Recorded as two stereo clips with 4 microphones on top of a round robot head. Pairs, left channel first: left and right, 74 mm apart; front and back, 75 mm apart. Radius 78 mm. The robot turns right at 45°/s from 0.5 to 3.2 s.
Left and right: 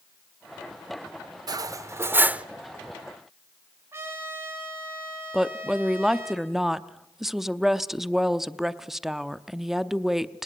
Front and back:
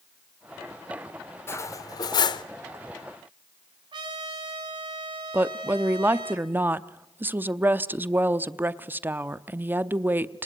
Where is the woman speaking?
170° right, 0.8 m.